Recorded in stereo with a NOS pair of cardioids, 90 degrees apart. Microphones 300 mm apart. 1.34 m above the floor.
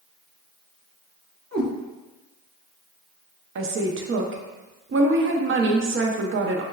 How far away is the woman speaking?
About 0.8 m.